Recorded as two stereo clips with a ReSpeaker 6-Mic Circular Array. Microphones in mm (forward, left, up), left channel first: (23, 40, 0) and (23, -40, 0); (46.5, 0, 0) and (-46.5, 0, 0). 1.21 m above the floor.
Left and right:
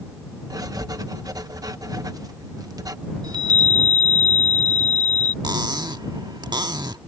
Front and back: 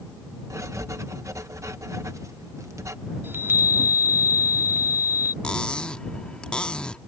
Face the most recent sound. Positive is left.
turn(degrees=-80)